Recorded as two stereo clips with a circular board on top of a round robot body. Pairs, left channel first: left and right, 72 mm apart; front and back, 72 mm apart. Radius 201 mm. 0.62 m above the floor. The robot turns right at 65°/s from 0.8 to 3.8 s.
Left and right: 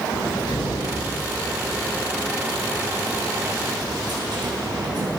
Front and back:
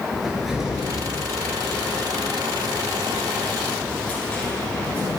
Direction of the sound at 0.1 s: 95° left.